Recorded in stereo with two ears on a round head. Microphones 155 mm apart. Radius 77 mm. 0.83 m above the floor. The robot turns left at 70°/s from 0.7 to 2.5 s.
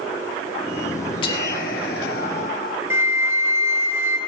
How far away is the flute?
About 2 m.